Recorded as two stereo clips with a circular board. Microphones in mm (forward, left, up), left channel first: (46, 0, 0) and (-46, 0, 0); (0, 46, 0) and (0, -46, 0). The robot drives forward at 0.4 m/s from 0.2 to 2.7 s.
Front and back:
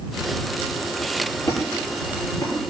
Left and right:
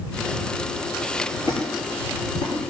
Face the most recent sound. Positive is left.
turn(degrees=65)